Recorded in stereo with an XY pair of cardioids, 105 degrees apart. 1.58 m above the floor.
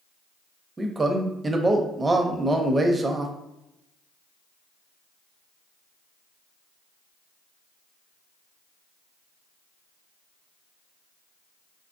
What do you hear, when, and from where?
0.8 s a man speaking: 25° right, 0.6 m